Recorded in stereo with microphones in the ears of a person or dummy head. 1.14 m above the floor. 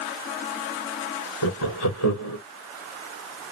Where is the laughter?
75° left (ahead or behind), 0.9 m.